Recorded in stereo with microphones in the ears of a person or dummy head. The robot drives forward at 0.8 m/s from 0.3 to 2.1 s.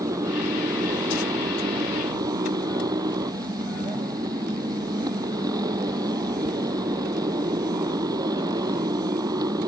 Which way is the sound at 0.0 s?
20° right (ahead or behind).